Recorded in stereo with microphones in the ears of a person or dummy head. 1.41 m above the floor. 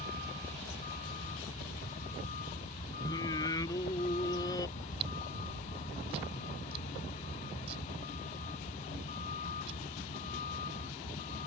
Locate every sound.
0.0 s a vehicle: 40° left (ahead or behind)
3.0 s singing: 20° left (ahead or behind)
4.8 s chewing: 30° right (ahead or behind)